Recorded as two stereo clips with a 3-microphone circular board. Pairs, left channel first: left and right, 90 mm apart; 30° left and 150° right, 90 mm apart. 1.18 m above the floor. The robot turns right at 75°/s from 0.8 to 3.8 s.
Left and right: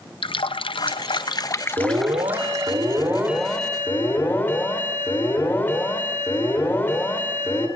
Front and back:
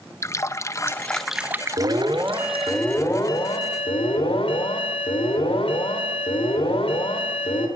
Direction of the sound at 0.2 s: 85° left.